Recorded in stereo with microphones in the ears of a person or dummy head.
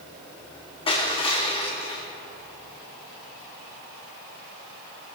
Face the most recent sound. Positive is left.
turn(degrees=25)  # may be behind; listen again after turning